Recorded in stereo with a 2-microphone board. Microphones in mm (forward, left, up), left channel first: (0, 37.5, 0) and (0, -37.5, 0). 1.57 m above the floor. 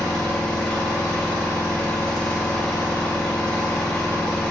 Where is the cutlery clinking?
I don't hear cutlery clinking.